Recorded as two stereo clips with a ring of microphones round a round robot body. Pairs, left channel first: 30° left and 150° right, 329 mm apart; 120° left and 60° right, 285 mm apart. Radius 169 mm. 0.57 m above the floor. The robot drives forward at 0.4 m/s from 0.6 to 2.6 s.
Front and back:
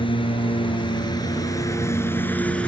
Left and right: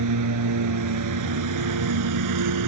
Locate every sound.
0.0 s a lawn mower: 45° right; by 2.7 s 55° right